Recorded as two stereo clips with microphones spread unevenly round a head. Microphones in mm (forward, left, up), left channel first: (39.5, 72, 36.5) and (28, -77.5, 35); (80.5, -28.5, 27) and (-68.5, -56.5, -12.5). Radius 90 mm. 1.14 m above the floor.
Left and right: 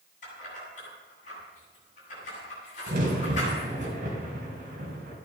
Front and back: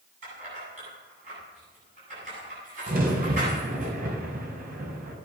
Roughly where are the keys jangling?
Behind left.